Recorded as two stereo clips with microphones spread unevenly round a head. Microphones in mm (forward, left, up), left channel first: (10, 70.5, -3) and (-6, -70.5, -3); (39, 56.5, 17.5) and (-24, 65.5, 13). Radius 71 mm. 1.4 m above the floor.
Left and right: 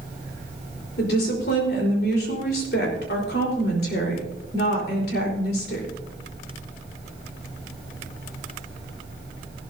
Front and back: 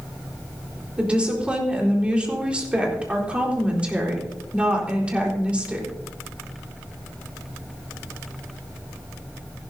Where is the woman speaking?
100° left, 4 m.